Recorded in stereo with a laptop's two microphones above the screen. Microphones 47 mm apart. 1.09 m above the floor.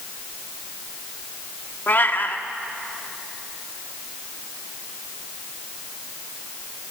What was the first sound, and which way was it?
A cat meowing, 45° left (ahead or behind).